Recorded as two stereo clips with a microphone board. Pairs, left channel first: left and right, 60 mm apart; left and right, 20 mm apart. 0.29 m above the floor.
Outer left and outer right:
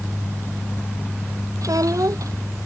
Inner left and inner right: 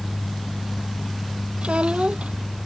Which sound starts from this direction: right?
A child speaking, at 1.6 s.